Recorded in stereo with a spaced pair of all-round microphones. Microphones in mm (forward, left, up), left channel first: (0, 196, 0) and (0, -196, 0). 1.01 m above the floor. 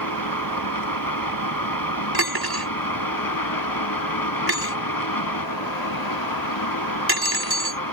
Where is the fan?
55° left (ahead or behind).